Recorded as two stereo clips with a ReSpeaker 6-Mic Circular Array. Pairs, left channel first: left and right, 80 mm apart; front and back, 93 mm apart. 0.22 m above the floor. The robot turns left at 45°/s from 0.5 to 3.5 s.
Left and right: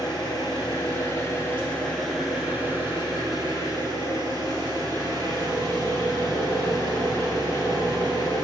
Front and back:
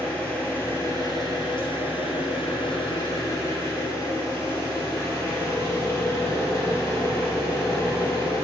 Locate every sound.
0.0 s an engine running: 70° left, 2.5 m; by 8.4 s 65° right, 2.5 m